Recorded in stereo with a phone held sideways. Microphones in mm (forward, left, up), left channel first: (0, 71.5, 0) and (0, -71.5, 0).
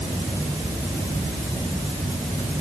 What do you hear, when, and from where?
Only background noise.